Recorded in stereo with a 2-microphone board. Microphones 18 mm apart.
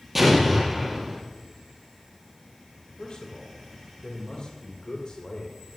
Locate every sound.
0.1 s an explosion: 15° right (ahead or behind), 4 m
3.0 s a man speaking: 55° left (ahead or behind), 2.5 m